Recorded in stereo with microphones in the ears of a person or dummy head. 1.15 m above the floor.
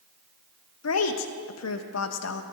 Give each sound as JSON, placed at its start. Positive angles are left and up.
{"t": 0.8, "sound": "a woman speaking", "side_deg": 85, "distance_m": 0.9}